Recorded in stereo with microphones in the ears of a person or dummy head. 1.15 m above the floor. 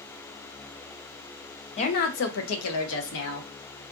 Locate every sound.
1.8 s a woman speaking: 35° left (ahead or behind), 0.6 m; by 3.5 s 60° left (ahead or behind), 1.0 m